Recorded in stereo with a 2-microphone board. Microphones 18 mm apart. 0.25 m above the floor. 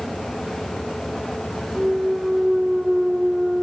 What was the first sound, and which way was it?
A clunk, 60° right (ahead or behind).